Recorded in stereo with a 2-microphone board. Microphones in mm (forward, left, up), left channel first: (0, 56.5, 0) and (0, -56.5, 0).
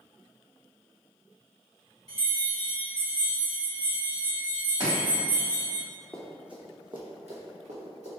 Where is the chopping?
40° right (ahead or behind), 1.9 m.